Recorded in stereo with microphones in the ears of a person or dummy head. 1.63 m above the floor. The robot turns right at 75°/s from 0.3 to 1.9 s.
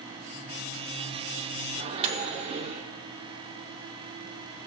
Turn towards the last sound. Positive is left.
turn(degrees=-35)  # may be behind; listen again after turning